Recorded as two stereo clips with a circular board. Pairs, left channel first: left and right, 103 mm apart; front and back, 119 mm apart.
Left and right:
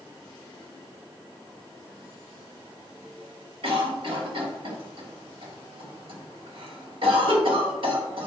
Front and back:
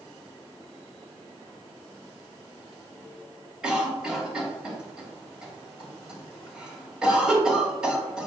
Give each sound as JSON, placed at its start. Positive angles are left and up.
{"t": 3.6, "sound": "a cough", "azimuth_deg": -95, "distance_m": 2.5}